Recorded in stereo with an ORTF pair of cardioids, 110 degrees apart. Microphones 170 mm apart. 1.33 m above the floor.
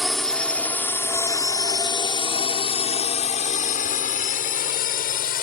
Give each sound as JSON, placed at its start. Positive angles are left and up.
{"t": 0.0, "sound": "a drone", "azimuth_deg": 0}